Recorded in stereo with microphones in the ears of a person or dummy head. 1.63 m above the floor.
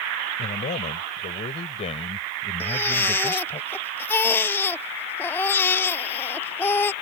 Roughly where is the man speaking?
Left.